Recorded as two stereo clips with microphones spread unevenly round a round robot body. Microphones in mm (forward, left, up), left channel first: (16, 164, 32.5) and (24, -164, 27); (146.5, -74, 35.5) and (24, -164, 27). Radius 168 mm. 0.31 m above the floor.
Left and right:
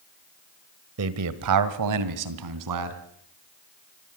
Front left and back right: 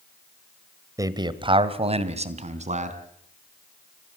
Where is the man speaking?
85° right, 1.3 m; by 3.0 s 110° right, 3 m.